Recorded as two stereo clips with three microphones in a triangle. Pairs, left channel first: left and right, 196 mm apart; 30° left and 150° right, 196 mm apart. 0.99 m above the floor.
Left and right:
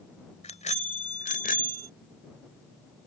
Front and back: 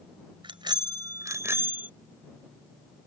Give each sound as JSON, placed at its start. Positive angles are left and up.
{"t": 0.4, "sound": "a bicycle bell", "azimuth_deg": 145}